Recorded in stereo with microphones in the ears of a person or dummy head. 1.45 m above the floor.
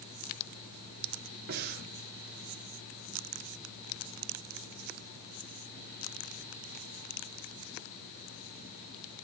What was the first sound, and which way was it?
Breathing, 55° right (ahead or behind).